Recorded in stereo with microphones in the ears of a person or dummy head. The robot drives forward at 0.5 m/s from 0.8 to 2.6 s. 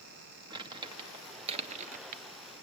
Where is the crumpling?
20° right (ahead or behind), 1.1 m; by 2.2 s 50° right (ahead or behind), 0.5 m.